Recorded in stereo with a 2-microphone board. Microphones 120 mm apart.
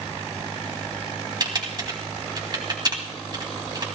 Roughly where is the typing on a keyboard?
Right.